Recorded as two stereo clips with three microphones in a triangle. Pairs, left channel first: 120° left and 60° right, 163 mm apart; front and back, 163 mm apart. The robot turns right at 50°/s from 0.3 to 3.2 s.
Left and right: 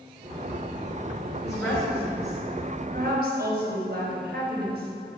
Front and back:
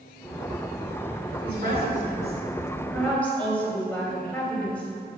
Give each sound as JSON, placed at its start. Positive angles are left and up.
{"t": 1.4, "sound": "a woman speaking", "azimuth_deg": -170, "distance_m": 4.0}